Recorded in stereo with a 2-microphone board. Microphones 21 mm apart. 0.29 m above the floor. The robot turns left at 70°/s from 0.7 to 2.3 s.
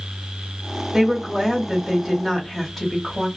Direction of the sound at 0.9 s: 25° right (ahead or behind).